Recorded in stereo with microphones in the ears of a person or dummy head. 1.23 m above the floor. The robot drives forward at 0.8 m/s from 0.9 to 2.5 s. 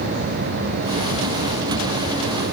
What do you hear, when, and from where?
Only background noise.